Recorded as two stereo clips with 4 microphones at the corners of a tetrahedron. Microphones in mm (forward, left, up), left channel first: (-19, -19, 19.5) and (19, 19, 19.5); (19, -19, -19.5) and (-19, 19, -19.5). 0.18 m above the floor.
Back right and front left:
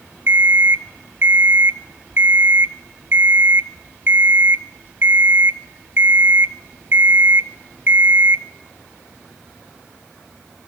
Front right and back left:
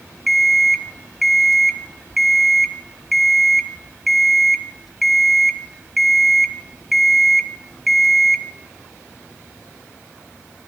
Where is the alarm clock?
50° left, 0.9 m.